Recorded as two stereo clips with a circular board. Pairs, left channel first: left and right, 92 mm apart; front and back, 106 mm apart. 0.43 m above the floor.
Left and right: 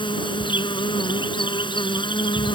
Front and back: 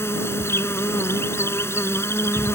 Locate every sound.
0.0 s an insect: 65° left